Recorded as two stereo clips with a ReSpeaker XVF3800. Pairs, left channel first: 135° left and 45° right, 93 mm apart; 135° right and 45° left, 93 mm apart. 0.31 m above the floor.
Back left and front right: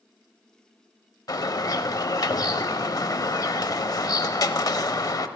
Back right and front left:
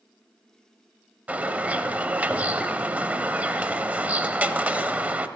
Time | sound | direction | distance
1.3 | a bird | 110° left | 0.5 m